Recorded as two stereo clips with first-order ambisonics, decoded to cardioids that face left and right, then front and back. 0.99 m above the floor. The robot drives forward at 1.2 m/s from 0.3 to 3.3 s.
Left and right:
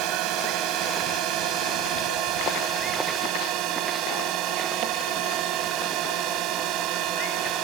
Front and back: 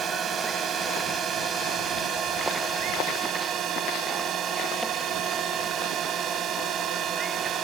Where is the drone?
120° right; by 7.6 s 125° right.